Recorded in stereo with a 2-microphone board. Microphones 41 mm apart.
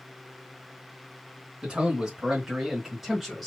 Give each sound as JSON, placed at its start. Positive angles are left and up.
{"t": 1.6, "sound": "a man speaking", "side_deg": -25, "distance_m": 2.0}